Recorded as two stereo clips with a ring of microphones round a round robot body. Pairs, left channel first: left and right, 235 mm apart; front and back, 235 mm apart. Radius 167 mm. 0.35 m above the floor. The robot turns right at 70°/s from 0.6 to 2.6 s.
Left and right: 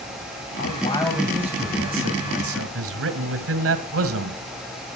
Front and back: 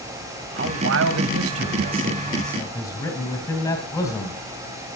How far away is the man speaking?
About 1.9 m.